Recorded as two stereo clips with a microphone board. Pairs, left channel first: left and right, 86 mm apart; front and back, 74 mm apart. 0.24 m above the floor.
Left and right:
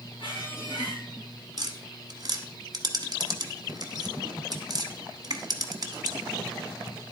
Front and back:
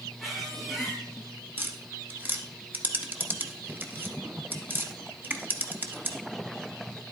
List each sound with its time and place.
0.2 s a squeak: 90° left, 3 m
1.6 s tapping: 120° right, 1.0 m